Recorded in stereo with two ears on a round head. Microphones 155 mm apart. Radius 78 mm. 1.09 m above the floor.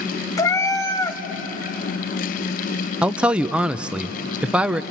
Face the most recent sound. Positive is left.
turn(degrees=-5)  # may be behind; listen again after turning